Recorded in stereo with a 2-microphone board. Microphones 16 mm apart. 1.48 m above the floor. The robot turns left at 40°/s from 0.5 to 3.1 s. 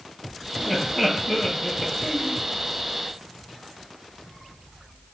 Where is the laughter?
15° left (ahead or behind), 2 m; by 2.4 s 80° left, 2 m.